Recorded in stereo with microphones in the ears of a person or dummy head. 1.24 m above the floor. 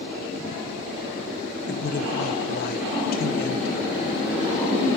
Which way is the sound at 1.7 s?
50° left (ahead or behind).